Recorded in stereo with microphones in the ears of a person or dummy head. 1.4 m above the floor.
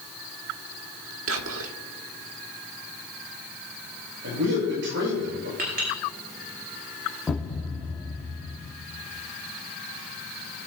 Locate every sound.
1.3 s whispering: 85° right, 1.4 m
4.2 s a man speaking: 65° right (ahead or behind), 6.5 m
5.6 s a clink: 50° right (ahead or behind), 5 m
7.3 s a thud: 10° left (ahead or behind), 2 m